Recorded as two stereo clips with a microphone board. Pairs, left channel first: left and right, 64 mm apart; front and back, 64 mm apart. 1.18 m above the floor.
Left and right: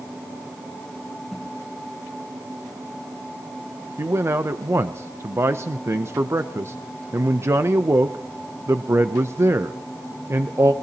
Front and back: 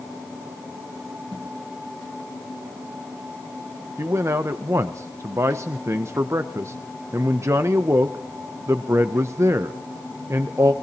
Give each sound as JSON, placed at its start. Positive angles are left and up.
{"t": 1.3, "sound": "a whoosh", "azimuth_deg": -175, "distance_m": 6.0}
{"t": 4.0, "sound": "a man speaking", "azimuth_deg": -135, "distance_m": 0.5}